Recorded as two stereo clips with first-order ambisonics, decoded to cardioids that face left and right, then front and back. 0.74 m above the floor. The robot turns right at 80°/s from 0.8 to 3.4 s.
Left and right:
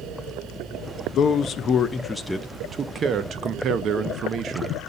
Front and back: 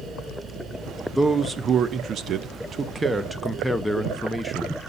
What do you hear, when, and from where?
1.1 s a man speaking: 90° left, 0.5 m; by 4.8 s 85° right, 0.5 m